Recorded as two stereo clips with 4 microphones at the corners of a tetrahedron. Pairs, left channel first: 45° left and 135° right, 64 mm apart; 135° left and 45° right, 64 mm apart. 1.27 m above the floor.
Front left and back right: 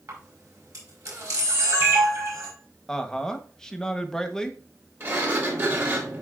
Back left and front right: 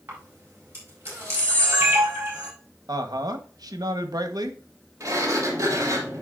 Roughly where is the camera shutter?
Right.